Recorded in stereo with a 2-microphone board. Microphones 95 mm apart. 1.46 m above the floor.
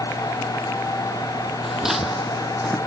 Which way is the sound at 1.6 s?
5° right (ahead or behind).